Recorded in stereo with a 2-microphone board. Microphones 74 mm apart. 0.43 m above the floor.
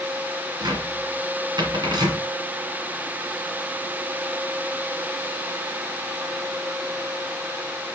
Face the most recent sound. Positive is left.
turn(degrees=-65)  # may be behind; listen again after turning